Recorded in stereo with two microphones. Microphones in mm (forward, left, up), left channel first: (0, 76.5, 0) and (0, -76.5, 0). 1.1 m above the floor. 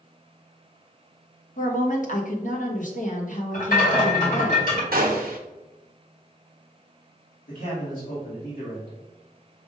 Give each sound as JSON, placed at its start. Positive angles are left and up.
{"t": 1.6, "sound": "a woman speaking", "side_deg": 60, "distance_m": 1.1}
{"t": 3.5, "sound": "a rattle", "side_deg": 65, "distance_m": 2.0}
{"t": 4.9, "sound": "a gunshot", "side_deg": -80, "distance_m": 0.9}
{"t": 7.5, "sound": "a man speaking", "side_deg": 70, "distance_m": 2.5}